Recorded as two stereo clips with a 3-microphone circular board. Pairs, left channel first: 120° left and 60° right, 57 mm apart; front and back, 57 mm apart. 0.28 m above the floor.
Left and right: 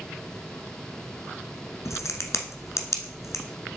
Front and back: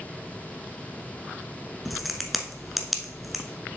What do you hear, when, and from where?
1.9 s a crack: 90° left, 1.0 m